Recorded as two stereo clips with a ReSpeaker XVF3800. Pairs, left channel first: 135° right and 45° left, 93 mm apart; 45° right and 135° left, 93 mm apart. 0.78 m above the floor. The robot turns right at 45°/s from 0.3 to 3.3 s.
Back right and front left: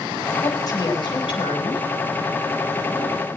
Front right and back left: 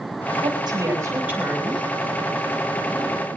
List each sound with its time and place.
0.4 s a woman speaking: 170° left, 6.5 m; by 1.9 s 130° right, 6.5 m